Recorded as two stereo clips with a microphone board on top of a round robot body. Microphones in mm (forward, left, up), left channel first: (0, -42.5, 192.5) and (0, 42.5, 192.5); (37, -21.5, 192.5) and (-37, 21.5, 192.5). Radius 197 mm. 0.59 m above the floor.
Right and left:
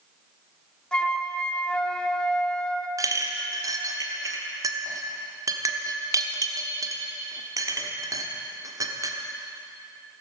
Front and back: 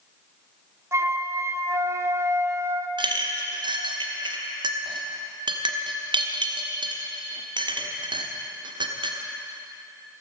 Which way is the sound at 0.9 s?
170° right.